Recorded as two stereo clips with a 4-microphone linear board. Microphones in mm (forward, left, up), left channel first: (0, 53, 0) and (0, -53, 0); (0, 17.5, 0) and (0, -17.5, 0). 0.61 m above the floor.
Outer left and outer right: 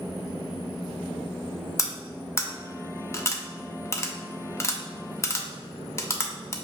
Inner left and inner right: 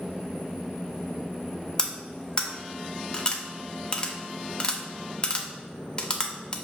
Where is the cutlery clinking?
25° left (ahead or behind), 0.6 m.